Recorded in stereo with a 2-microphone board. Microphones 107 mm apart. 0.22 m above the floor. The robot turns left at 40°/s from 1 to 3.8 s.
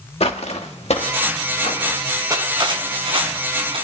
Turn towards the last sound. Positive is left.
turn(degrees=-100)